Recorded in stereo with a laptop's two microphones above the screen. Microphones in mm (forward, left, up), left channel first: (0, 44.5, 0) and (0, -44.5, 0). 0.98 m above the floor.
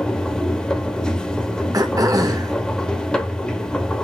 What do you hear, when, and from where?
0.0 s a machine running: 10° left (ahead or behind), 0.9 m
1.7 s throat clearing: 40° right (ahead or behind), 0.9 m